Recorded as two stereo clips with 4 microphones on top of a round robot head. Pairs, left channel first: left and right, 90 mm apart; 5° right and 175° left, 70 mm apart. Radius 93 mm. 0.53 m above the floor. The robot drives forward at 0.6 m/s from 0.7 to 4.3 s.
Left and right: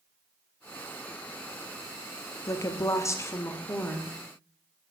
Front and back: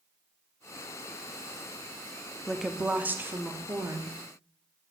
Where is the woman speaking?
85° left, 0.8 m; by 4.2 s 155° left, 1.3 m.